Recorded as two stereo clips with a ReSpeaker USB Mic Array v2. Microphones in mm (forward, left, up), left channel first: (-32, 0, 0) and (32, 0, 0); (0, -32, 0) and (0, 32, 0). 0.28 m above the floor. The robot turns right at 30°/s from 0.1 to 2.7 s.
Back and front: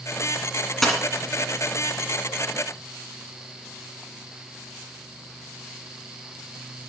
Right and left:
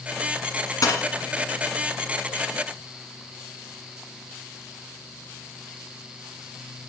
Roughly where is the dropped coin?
Right.